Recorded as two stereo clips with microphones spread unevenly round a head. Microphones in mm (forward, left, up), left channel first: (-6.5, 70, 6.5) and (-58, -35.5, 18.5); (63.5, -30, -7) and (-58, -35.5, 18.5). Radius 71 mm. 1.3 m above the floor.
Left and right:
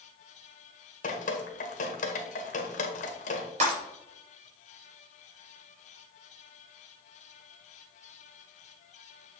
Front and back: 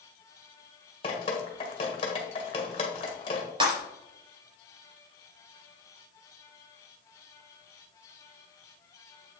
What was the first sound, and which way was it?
Dripping, 55° left.